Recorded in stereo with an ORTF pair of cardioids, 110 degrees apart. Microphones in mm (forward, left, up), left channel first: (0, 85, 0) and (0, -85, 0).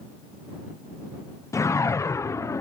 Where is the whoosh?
15° left.